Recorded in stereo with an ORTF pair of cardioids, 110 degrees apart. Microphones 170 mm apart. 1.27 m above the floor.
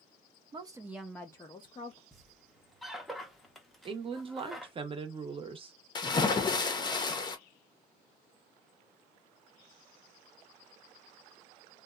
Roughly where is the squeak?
Ahead.